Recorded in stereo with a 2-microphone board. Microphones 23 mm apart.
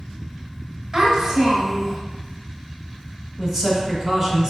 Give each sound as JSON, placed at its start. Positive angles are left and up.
{"t": 0.9, "sound": "a child speaking", "side_deg": -25, "distance_m": 1.3}
{"t": 3.4, "sound": "a man speaking", "side_deg": -20, "distance_m": 1.1}